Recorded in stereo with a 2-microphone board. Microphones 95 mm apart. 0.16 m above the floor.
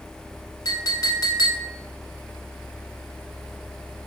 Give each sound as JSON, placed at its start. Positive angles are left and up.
{"t": 0.7, "sound": "a clink", "side_deg": 45, "distance_m": 1.0}